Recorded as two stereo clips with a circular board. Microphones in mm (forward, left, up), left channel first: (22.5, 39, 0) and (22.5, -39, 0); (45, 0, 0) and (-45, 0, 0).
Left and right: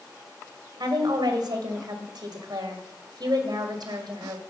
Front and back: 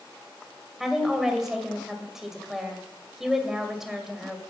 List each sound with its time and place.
0.8 s a woman speaking: 95° right, 2 m